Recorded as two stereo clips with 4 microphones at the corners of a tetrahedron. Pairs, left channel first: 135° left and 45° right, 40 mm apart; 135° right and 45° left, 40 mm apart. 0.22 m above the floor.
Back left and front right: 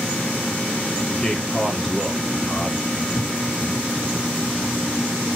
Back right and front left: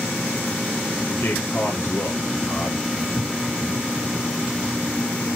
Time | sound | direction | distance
1.2 | a man speaking | 150° right | 4 m